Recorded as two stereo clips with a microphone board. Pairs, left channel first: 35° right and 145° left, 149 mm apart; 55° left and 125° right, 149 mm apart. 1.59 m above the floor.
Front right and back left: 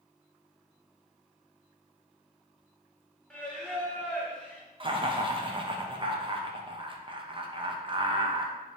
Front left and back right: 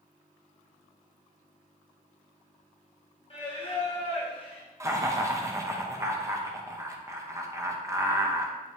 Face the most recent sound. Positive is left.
turn(degrees=175)